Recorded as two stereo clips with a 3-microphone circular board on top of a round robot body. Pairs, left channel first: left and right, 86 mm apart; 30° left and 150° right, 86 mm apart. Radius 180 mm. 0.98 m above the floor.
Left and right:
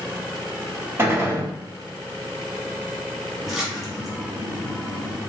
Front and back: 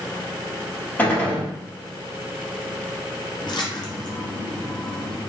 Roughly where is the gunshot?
Ahead right.